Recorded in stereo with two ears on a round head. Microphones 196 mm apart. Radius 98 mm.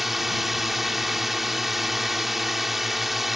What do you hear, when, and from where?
0.0 s a drone: centre (ahead or behind)